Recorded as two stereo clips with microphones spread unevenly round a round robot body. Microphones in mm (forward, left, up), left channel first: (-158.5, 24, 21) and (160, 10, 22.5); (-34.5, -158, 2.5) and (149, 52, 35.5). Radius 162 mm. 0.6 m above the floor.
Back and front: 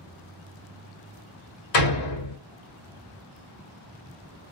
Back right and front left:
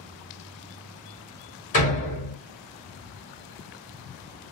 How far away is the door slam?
About 1.2 m.